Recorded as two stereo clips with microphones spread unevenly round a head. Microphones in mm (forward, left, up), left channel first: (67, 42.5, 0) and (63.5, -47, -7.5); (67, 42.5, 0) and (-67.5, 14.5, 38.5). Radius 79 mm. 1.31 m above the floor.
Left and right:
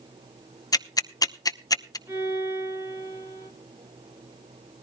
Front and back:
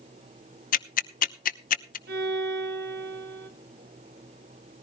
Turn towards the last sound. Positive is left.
turn(degrees=-165)